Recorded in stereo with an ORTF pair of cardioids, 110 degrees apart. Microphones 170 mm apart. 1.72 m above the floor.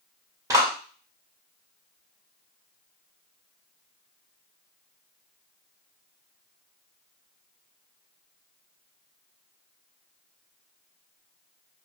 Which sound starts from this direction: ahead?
A clap, at 0.5 s.